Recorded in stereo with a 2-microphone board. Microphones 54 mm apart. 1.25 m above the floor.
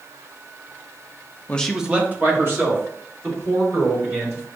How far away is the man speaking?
About 0.5 m.